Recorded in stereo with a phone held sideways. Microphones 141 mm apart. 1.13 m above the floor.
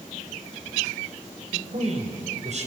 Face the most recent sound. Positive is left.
turn(degrees=-55)  # may be behind; listen again after turning